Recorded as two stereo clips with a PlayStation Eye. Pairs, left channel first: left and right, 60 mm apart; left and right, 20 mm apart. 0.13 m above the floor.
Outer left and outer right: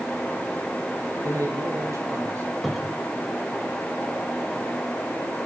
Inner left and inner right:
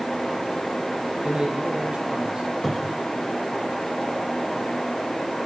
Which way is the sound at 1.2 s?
70° right (ahead or behind).